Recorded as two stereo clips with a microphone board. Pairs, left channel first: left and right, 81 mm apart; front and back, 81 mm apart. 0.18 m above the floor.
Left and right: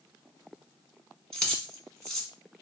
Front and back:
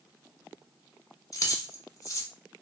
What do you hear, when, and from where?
1.3 s keys jangling: 15° left, 0.9 m